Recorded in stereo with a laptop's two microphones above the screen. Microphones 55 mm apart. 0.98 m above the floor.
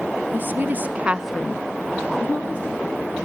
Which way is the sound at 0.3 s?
40° right (ahead or behind).